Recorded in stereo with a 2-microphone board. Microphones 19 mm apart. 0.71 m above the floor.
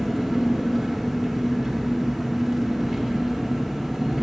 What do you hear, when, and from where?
0.0 s an engine running: 10° right (ahead or behind), 1.0 m